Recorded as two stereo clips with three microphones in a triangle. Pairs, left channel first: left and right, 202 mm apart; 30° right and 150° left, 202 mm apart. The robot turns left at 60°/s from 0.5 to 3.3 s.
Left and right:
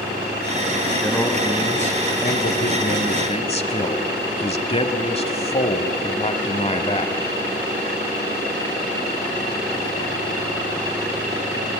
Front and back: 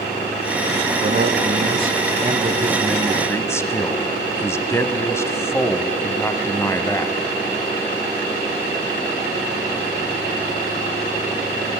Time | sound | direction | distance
1.0 | a man speaking | straight behind | 1.3 m